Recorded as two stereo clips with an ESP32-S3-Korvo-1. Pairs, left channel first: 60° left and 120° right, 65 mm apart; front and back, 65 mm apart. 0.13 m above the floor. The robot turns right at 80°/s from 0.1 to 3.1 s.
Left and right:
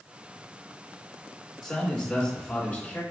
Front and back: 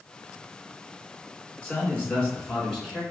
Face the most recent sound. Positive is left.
turn(degrees=95)